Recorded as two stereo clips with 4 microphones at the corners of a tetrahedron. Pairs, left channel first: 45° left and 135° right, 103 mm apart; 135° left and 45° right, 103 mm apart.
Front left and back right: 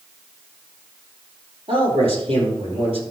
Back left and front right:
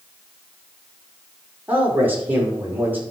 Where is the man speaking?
115° right, 5 m.